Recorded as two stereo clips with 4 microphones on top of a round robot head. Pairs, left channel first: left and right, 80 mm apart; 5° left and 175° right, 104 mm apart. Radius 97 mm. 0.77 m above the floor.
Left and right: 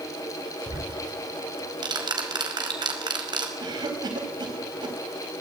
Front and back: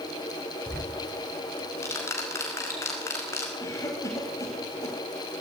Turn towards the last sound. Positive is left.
turn(degrees=-60)